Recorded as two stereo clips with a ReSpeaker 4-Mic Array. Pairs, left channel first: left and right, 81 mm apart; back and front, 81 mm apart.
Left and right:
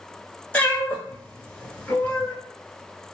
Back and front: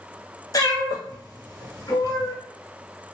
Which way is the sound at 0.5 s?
160° left.